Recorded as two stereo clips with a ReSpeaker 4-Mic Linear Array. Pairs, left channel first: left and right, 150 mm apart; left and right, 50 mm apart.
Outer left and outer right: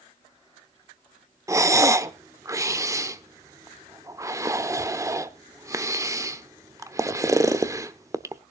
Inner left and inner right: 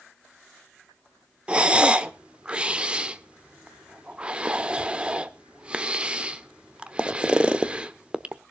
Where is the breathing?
20° right (ahead or behind), 0.8 m.